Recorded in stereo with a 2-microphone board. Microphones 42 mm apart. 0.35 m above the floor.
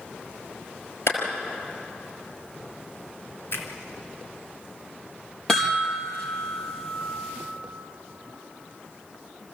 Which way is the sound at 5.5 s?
15° left (ahead or behind).